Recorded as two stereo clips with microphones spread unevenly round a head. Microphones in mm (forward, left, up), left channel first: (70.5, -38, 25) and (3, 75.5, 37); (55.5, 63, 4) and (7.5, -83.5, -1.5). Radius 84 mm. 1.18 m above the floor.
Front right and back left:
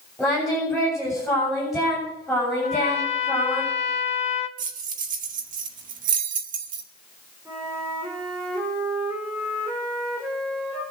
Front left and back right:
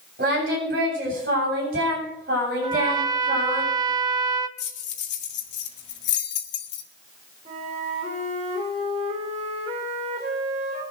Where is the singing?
150° right, 7.5 m.